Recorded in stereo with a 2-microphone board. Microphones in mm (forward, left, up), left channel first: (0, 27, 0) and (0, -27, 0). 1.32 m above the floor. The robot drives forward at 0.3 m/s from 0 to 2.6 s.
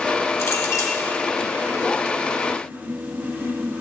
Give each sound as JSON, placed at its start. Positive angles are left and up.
{"t": 0.4, "sound": "a clink", "side_deg": 80, "distance_m": 2.5}